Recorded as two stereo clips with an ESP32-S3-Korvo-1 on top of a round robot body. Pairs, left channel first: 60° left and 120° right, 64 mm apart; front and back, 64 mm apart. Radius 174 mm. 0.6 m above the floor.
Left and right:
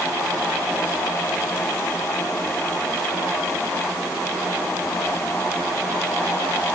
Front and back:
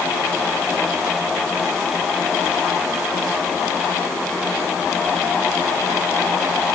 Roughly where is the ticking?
No ticking in this recording.